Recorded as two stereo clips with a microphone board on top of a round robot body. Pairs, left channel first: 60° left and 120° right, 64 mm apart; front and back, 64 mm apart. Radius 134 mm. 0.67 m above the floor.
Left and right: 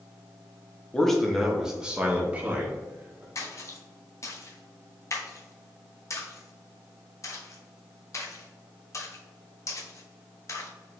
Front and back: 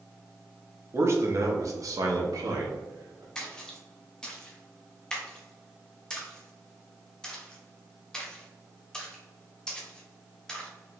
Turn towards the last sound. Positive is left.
turn(degrees=75)